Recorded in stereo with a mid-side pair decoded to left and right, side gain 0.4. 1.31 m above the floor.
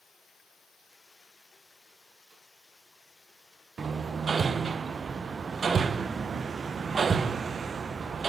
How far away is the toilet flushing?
No toilet flushing in this recording.